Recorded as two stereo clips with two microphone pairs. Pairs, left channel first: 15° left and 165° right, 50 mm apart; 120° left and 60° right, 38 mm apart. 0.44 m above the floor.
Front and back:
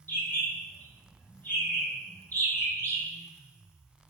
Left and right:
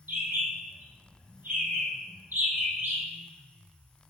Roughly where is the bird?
Ahead right.